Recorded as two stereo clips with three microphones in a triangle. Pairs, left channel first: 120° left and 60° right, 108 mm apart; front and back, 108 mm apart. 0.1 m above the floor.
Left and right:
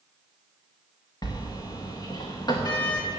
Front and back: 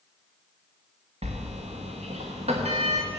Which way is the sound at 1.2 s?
175° left.